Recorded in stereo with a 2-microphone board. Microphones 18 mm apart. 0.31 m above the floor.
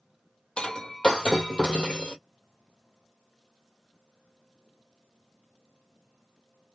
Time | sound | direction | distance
0.6 | breaking glass | 55° left (ahead or behind) | 1.2 m